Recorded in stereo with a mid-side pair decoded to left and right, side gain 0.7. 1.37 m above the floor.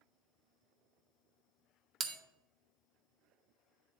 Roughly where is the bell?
Ahead right.